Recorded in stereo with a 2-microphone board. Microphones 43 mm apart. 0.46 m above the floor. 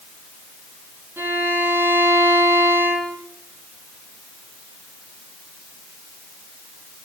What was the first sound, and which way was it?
A violin, 65° right (ahead or behind).